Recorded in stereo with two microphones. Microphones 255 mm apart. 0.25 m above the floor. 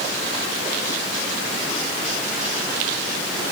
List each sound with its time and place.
Only background noise.